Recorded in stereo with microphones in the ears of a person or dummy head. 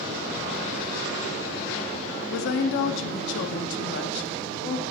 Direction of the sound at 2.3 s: 70° left (ahead or behind).